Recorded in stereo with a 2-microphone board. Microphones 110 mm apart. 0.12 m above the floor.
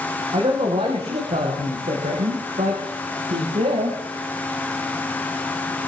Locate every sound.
0.3 s a man speaking: 65° right (ahead or behind), 6.5 m; by 4.0 s 80° right, 8 m